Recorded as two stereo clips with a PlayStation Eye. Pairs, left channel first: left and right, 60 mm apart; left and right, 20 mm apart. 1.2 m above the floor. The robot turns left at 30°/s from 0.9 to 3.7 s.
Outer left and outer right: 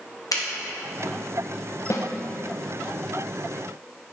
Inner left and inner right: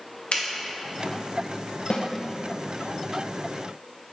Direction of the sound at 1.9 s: 50° left (ahead or behind).